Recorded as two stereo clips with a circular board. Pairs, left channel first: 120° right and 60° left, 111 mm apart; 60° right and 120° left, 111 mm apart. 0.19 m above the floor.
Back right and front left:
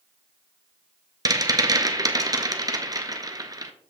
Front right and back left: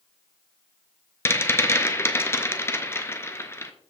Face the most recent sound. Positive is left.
turn(degrees=5)